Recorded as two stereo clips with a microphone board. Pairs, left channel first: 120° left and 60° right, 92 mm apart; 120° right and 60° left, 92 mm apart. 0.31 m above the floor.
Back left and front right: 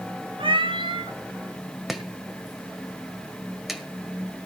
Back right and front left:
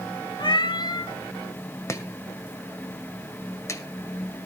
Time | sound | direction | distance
0.4 | a cat meowing | 85° right | 1.2 m
1.9 | chopping | 145° right | 1.7 m